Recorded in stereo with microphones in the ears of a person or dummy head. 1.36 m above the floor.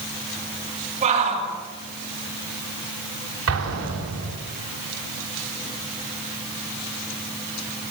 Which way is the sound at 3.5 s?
85° right.